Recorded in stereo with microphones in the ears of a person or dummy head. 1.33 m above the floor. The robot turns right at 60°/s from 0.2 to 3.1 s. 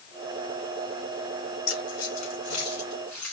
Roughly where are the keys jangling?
Left.